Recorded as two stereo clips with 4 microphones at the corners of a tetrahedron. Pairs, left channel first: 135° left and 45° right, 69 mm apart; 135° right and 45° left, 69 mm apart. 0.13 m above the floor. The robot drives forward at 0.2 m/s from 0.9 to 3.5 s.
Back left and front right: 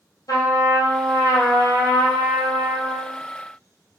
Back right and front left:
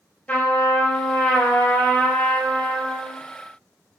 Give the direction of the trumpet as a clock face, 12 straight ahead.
7 o'clock.